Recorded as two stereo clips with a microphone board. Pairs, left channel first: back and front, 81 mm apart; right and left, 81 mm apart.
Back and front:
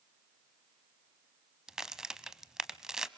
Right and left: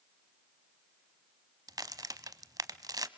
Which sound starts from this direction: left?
A crack, at 1.7 s.